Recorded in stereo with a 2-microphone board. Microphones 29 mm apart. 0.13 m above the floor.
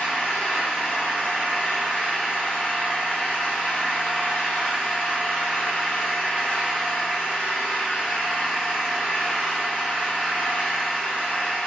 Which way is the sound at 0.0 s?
75° left (ahead or behind).